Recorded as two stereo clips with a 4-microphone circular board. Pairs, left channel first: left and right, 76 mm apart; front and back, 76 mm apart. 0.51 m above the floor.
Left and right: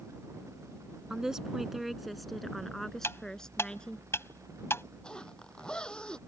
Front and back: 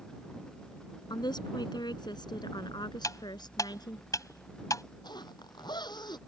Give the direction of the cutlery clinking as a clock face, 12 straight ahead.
11 o'clock.